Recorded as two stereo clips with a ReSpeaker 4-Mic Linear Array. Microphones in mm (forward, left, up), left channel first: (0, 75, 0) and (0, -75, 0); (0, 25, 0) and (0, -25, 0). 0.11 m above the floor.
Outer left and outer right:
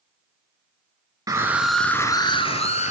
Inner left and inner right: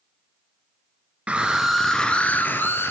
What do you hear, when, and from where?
1.3 s a scream: 25° right (ahead or behind), 1.4 m; by 2.9 s 50° left (ahead or behind), 1.9 m